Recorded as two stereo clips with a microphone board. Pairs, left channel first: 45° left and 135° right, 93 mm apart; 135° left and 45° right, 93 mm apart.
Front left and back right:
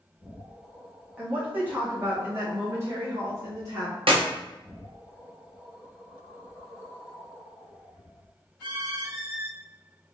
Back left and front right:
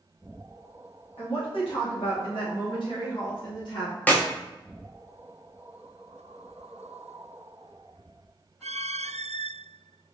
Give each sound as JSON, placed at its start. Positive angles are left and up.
{"t": 1.2, "sound": "a woman speaking", "azimuth_deg": 150, "distance_m": 1.8}
{"t": 4.1, "sound": "a clap", "azimuth_deg": -155, "distance_m": 0.7}